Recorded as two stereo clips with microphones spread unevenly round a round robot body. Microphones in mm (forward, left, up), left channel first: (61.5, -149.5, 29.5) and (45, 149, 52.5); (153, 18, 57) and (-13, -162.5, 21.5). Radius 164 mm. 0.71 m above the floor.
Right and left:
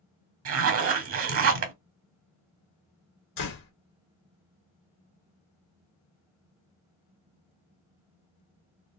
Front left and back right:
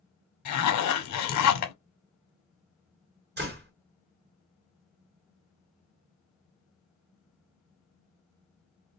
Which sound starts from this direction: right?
A door slam, at 3.4 s.